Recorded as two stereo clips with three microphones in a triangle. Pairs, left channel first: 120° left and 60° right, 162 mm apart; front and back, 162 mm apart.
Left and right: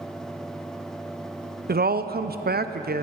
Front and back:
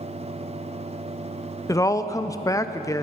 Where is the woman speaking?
70° right, 0.5 m.